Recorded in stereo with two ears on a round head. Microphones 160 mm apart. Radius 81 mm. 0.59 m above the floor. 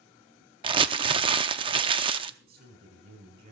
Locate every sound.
0.6 s crumpling: 25° right (ahead or behind), 0.6 m
2.4 s a man speaking: 50° right (ahead or behind), 5 m